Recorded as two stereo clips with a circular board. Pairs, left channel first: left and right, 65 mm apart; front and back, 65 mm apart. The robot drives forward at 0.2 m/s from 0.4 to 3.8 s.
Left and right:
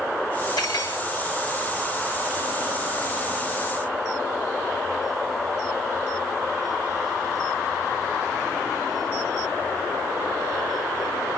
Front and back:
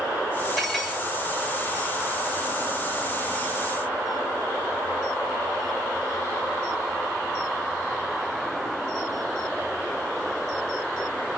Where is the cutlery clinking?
90° left, 5.5 m.